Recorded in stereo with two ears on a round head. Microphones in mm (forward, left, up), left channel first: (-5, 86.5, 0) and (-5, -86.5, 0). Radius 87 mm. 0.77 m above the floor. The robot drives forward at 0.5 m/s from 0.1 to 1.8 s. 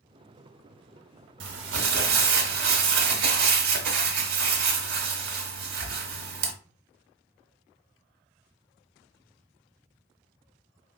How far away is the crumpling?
About 0.8 m.